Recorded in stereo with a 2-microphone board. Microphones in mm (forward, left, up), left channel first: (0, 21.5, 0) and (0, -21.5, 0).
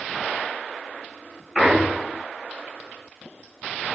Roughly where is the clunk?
Centre.